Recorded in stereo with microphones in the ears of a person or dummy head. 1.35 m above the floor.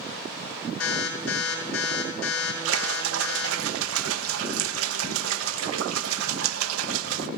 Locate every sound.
0.8 s an alarm: 80° left, 7.5 m
2.6 s a splash: 85° right, 0.9 m